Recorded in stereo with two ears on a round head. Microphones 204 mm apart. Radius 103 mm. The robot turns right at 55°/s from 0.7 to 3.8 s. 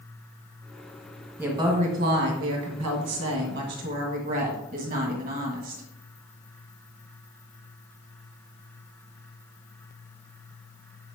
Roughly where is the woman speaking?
Behind.